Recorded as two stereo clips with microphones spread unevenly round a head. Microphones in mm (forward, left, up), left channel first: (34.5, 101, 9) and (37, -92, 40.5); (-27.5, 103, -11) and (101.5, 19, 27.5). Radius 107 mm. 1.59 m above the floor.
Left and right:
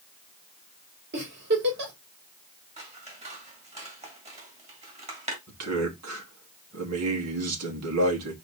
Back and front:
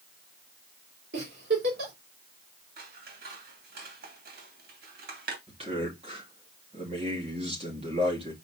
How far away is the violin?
No violin in this recording.